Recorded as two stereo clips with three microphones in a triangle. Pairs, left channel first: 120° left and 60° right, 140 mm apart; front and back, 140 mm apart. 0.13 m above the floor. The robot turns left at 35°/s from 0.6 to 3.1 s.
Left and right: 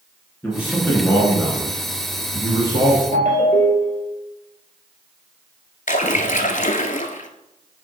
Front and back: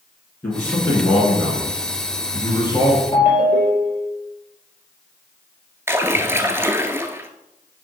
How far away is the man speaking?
About 1.8 m.